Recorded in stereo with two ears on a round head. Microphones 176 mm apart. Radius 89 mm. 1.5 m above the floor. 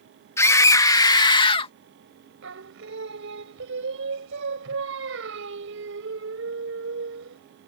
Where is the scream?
15° left (ahead or behind); by 1.7 s 30° left (ahead or behind).